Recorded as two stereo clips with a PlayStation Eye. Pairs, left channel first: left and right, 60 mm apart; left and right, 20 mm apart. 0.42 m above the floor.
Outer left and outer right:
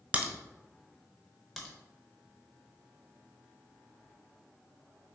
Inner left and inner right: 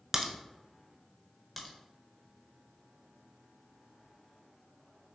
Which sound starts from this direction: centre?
A crack, at 1.6 s.